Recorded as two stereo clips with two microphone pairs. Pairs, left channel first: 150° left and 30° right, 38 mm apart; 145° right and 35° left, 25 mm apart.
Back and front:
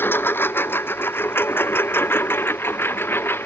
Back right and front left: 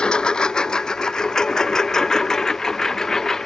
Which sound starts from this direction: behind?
A lawn mower, at 0.0 s.